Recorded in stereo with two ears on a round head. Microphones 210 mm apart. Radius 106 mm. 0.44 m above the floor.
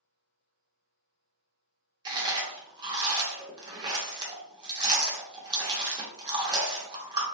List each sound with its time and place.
2.0 s chewing: 20° right (ahead or behind), 0.6 m